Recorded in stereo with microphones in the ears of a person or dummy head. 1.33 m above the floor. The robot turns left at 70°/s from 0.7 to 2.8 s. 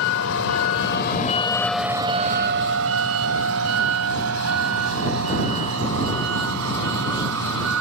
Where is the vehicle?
80° left; by 7.8 s 75° right (ahead or behind).